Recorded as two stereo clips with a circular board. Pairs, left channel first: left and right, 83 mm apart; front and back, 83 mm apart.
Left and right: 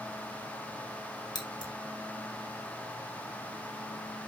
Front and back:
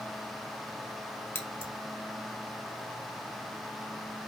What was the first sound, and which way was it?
Scissors, 65° left.